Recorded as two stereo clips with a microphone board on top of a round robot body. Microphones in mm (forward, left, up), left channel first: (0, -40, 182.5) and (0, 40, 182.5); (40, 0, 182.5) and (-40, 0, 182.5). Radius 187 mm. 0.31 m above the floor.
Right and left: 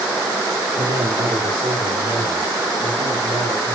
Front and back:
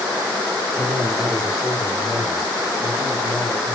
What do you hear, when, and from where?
0.8 s a man speaking: 105° left, 2 m; by 3.8 s 80° left, 5 m